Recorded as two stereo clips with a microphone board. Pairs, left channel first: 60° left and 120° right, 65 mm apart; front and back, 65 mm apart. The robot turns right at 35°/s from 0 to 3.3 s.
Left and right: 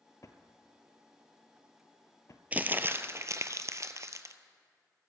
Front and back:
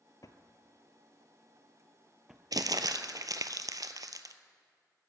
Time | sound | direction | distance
0.2 | a drawer | 25° left | 0.8 m
2.5 | crumpling | 175° left | 0.6 m